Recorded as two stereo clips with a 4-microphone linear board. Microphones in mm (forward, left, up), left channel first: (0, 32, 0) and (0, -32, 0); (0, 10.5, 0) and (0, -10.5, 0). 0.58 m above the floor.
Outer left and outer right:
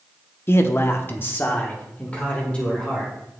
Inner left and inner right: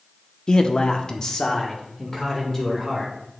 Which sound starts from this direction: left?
A man speaking, at 0.5 s.